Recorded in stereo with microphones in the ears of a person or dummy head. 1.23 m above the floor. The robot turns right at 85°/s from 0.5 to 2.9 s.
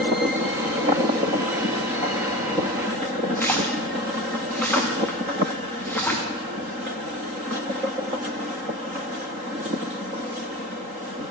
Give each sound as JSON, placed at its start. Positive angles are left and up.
{"t": 3.4, "sound": "a splash", "side_deg": 10, "distance_m": 1.1}